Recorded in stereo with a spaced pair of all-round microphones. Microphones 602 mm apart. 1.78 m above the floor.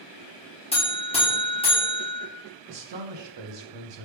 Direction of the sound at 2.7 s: 50° right (ahead or behind).